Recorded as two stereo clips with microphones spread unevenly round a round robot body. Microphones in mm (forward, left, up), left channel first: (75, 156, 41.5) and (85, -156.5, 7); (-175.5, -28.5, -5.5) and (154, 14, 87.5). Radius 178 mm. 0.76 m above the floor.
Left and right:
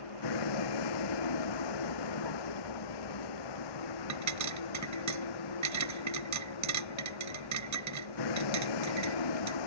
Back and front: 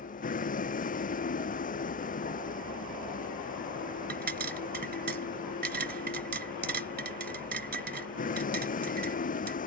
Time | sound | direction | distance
0.0 | a vehicle | 120° left | ?
4.1 | a pop | 55° right | ?